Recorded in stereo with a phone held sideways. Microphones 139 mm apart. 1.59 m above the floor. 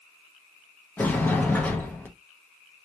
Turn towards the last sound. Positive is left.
turn(degrees=10)  # may be behind; listen again after turning